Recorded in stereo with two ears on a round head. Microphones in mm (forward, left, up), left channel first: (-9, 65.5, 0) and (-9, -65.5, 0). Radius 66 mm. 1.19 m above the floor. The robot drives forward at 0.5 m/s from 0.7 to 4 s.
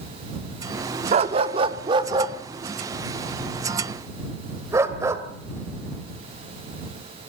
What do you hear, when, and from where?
1.1 s a dog barking: 40° right (ahead or behind), 1.0 m; by 5.2 s 20° right (ahead or behind), 2 m